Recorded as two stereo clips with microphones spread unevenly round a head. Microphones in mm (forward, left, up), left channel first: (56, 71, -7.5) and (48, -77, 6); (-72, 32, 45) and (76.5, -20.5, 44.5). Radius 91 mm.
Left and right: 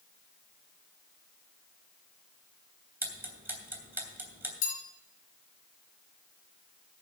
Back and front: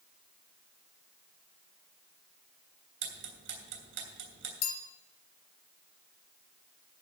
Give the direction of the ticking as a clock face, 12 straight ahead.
1 o'clock.